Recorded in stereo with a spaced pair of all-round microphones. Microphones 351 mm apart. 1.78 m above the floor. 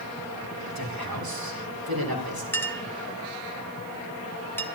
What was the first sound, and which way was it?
A man speaking, 80° right.